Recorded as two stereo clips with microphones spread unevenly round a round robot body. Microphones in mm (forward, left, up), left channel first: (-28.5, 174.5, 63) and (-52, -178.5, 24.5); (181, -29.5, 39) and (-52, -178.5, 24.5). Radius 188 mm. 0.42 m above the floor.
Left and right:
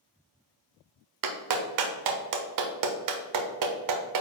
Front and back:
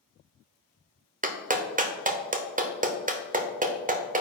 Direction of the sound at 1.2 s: 90° right.